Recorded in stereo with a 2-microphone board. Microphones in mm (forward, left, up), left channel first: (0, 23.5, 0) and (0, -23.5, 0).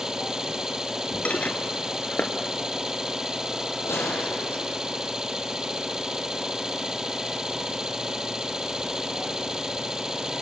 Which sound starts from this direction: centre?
An engine running, at 0.0 s.